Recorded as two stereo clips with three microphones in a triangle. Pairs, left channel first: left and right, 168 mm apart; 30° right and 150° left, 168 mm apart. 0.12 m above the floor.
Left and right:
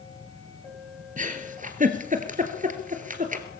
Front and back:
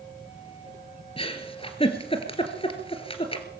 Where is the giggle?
75° right, 2 m.